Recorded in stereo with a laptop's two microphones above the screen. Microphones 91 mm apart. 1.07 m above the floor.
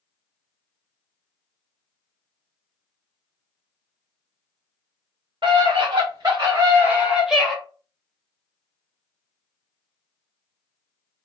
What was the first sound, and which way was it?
A scream, 60° right (ahead or behind).